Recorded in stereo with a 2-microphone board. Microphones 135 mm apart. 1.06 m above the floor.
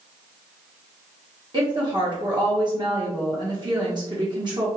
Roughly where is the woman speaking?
Right.